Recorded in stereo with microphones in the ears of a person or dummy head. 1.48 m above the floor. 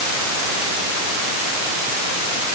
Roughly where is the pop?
I don't hear a pop.